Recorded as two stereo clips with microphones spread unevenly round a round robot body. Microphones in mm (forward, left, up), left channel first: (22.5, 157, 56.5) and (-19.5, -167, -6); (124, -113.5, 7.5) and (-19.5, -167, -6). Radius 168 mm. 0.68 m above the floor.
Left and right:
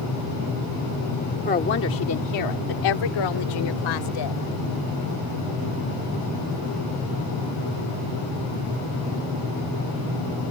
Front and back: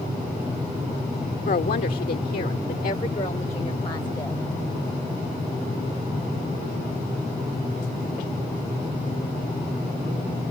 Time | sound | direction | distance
1.4 | a woman speaking | 15° left | ?